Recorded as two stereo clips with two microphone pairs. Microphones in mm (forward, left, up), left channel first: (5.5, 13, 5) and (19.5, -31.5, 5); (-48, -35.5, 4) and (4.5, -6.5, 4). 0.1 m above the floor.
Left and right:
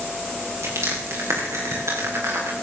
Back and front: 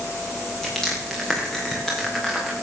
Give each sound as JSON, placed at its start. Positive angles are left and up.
{"t": 0.6, "sound": "crushing", "azimuth_deg": -65, "distance_m": 6.0}